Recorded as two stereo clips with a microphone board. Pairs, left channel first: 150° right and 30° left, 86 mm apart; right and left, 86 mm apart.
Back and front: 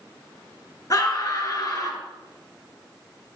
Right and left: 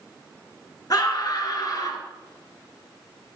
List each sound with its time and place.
0.9 s a scream: 120° right, 2.5 m